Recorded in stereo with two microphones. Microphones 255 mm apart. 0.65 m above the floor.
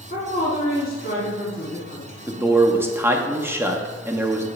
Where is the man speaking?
10° right (ahead or behind), 0.6 m.